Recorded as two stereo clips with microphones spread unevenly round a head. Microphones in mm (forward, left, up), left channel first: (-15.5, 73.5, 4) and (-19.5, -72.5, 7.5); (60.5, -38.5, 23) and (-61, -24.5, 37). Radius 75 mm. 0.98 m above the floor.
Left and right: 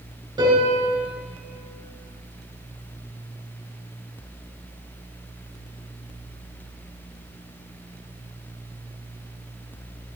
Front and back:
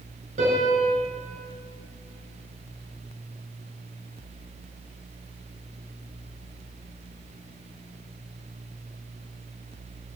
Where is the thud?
No thud in this recording.